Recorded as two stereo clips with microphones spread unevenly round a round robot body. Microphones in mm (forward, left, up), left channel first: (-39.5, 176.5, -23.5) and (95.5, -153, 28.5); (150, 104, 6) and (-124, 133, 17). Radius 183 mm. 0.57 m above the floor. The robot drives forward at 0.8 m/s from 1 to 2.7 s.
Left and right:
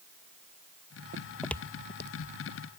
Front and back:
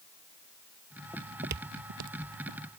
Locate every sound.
1.1 s footsteps: 90° right; by 2.6 s 170° left